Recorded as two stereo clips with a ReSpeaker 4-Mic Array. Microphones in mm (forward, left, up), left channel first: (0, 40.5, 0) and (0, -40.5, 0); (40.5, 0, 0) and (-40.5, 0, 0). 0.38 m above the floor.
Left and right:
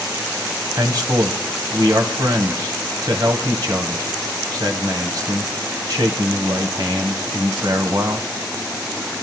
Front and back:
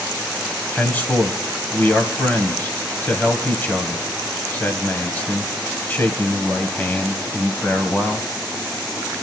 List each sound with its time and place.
0.8 s a man speaking: 65° right, 1.9 m